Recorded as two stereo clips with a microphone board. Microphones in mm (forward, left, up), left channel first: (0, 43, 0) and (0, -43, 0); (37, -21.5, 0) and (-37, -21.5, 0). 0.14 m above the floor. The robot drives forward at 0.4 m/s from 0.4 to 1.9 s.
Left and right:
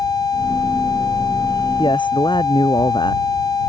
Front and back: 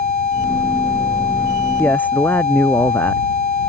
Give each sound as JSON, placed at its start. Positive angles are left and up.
{"t": 1.8, "sound": "a man speaking", "azimuth_deg": 65}